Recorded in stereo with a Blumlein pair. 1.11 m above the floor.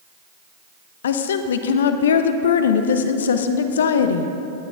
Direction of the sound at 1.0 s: 60° left.